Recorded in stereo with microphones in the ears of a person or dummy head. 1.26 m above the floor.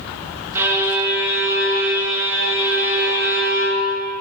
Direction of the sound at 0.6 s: 15° right (ahead or behind).